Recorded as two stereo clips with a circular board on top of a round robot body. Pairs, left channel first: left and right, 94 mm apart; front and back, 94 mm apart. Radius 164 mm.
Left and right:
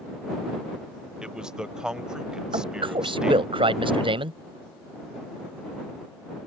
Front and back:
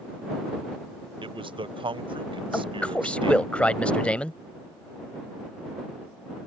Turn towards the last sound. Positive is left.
turn(degrees=-80)